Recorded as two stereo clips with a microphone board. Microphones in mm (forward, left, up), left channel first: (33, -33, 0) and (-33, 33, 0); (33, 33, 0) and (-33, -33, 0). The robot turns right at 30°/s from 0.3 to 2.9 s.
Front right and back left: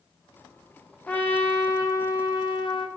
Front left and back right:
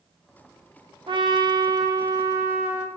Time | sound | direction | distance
1.1 | a trumpet | 120° right | 0.5 m